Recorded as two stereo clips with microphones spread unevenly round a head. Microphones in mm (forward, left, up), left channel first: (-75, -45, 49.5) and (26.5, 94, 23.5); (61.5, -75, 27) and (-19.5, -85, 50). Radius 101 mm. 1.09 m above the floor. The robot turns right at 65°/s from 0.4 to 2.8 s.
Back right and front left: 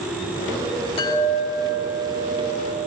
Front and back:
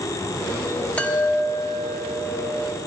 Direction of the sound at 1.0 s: 65° right.